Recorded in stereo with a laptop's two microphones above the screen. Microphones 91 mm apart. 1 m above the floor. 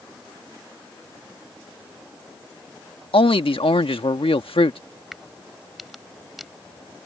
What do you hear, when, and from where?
3.1 s a man speaking: 80° left
5.1 s a crack: centre (ahead or behind)